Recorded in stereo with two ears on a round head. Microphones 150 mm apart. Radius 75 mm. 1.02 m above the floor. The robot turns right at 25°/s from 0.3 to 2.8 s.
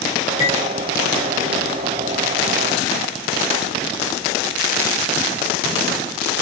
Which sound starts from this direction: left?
Cutlery clinking, at 0.4 s.